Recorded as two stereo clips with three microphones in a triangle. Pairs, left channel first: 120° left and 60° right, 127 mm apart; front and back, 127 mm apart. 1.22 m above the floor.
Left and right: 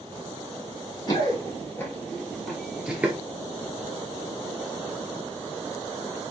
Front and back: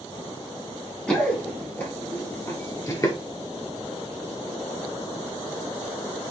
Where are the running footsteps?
80° left, 1.5 m; by 3.2 s straight ahead, 1.3 m.